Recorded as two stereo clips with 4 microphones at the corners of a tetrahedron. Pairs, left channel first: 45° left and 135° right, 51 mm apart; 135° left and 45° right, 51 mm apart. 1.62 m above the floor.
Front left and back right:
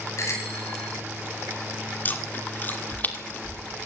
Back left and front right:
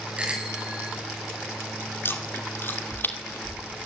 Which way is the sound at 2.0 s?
95° left.